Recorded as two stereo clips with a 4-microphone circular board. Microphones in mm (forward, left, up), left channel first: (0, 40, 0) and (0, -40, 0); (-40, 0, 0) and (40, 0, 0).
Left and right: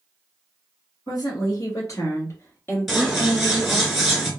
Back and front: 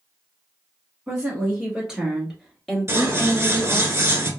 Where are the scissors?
10° right, 0.9 m.